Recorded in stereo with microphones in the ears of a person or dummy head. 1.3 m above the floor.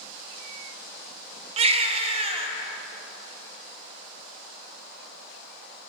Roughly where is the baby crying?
Right.